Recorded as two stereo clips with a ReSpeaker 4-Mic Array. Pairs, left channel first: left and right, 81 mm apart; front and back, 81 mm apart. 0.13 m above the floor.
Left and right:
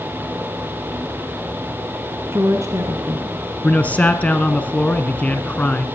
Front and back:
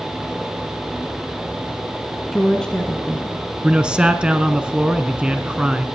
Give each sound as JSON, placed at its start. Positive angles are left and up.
{"t": 2.3, "sound": "a woman speaking", "azimuth_deg": -80, "distance_m": 1.6}
{"t": 3.6, "sound": "a man speaking", "azimuth_deg": 120, "distance_m": 1.2}